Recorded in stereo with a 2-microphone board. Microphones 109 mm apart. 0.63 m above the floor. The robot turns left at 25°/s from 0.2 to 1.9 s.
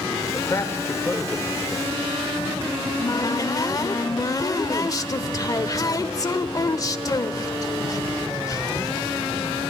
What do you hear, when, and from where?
0.3 s a man speaking: 30° left (ahead or behind), 2 m; by 1.9 s 5° right (ahead or behind), 2 m
2.8 s a cupboard door: 35° left (ahead or behind), 1.0 m